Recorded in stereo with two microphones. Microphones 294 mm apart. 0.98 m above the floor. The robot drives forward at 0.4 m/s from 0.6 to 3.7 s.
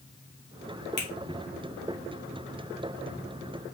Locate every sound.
1.0 s a finger snap: 35° left (ahead or behind), 1.6 m